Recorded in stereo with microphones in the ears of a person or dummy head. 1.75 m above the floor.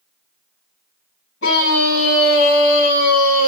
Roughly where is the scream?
Left.